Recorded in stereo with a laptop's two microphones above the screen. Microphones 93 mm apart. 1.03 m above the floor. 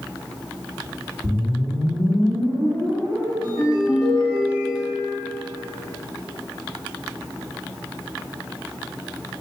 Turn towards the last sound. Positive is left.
turn(degrees=-50)  # may be behind; listen again after turning